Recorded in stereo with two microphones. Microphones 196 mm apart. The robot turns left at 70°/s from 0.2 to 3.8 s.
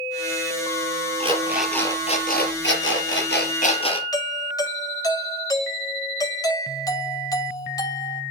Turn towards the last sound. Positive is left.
turn(degrees=20)  # may be behind; listen again after turning